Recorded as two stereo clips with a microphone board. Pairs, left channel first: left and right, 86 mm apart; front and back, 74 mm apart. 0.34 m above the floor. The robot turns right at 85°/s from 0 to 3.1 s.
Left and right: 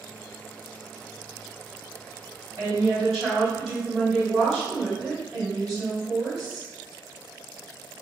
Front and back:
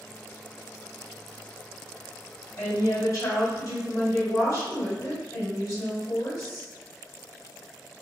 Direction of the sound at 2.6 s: 45° right.